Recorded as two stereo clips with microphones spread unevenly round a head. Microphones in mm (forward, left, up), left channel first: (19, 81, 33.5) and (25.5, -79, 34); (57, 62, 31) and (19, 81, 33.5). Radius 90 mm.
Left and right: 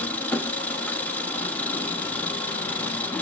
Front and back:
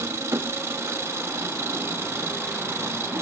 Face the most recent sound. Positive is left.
turn(degrees=175)